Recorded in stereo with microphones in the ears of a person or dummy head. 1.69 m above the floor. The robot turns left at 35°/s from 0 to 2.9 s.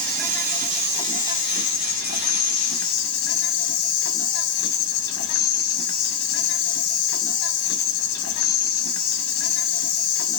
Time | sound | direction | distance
0.0 | an insect | 175° left | 1.5 m